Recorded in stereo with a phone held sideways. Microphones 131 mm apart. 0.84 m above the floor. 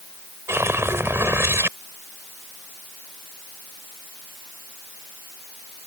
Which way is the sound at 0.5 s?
20° right (ahead or behind).